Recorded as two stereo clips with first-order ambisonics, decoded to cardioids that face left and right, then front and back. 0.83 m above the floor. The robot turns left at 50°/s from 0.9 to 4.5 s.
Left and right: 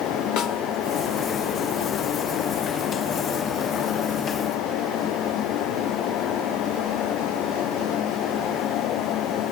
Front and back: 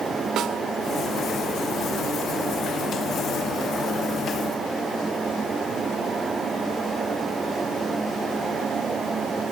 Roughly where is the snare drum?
Behind left.